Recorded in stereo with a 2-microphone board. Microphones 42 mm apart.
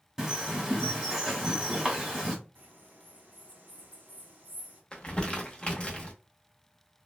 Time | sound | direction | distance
0.2 | a bird | 15° right (ahead or behind) | 1.2 m
2.5 | a bird | 40° right (ahead or behind) | 1.3 m
4.9 | crumpling | 25° left (ahead or behind) | 0.7 m